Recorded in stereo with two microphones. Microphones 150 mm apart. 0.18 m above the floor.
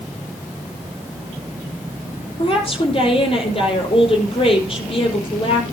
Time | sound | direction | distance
2.4 | a woman speaking | 40° left (ahead or behind) | 5 m